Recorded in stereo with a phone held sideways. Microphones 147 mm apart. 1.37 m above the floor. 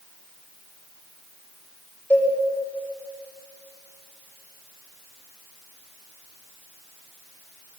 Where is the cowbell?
15° left (ahead or behind), 5.5 m.